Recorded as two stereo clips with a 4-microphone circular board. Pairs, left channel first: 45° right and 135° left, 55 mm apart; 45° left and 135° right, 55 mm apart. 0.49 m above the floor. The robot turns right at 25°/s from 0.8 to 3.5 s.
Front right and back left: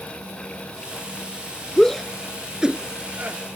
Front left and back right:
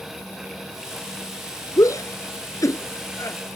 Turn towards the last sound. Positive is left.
turn(degrees=80)